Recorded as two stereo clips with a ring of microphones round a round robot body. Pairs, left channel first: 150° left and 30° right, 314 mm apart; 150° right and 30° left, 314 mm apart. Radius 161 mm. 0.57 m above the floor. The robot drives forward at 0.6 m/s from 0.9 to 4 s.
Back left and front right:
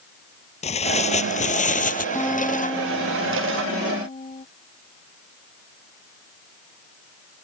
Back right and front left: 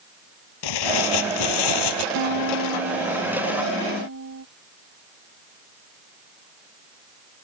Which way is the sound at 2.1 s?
65° left.